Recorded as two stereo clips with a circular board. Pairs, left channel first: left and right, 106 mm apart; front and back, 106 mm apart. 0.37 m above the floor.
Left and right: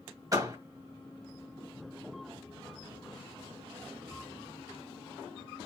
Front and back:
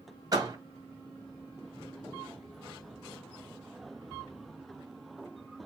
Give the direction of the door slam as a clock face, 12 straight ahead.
5 o'clock.